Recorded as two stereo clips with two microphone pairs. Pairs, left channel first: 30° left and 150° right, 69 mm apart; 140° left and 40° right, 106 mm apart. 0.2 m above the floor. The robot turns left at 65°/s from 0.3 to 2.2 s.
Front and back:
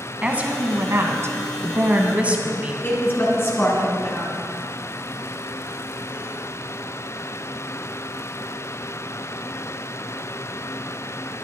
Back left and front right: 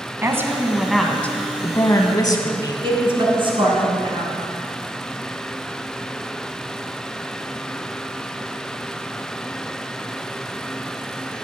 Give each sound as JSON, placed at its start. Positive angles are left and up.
{"t": 0.2, "sound": "a woman speaking", "azimuth_deg": -90, "distance_m": 1.2}
{"t": 2.8, "sound": "a woman speaking", "azimuth_deg": -20, "distance_m": 2.5}